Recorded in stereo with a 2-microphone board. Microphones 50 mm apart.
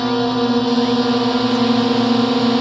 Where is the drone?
5° left (ahead or behind).